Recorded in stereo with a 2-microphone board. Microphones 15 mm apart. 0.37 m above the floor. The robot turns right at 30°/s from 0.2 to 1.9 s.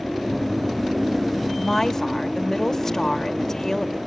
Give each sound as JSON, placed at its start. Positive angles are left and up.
{"t": 1.6, "sound": "a woman speaking", "side_deg": 25, "distance_m": 1.0}